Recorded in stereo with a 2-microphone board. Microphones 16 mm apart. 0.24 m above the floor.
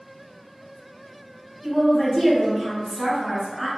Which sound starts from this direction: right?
A woman speaking, at 1.6 s.